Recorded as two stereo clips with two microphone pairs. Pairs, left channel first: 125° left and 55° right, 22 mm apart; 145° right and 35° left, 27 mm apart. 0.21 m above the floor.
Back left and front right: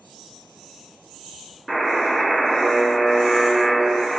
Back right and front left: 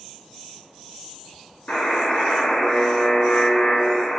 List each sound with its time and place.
1.7 s a buzzer: 155° right, 0.8 m